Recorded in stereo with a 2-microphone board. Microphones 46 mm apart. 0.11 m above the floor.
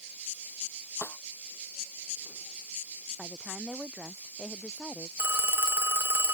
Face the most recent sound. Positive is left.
turn(degrees=-55)  # may be behind; listen again after turning